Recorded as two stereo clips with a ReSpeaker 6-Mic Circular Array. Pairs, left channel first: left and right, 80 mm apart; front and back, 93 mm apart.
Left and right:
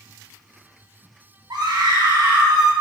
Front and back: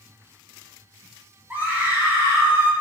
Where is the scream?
110° right, 3.5 m; by 2.7 s 115° right, 4.5 m.